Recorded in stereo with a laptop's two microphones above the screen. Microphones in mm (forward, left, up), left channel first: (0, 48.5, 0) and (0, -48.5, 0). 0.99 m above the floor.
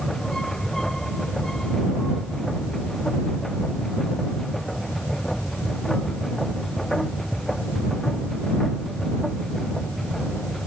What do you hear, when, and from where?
0.0 s a machine running: 5° left (ahead or behind)